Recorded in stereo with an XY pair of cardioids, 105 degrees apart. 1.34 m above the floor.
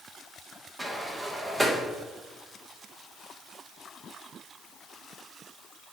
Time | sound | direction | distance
0.8 | a sliding door | 20° right | 1.1 m